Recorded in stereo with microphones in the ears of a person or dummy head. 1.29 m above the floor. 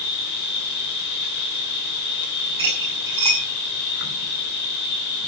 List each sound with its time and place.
0.0 s an insect: 50° left (ahead or behind), 1.8 m
2.6 s cutlery clinking: 25° right (ahead or behind), 5 m